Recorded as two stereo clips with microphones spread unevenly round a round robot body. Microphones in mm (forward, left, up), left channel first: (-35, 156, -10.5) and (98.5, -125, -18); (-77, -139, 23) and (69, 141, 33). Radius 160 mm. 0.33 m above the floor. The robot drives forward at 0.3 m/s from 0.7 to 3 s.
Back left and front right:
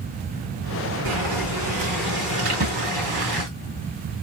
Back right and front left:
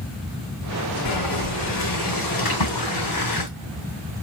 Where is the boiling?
95° right, 2.5 m; by 3.5 s 110° right, 3 m.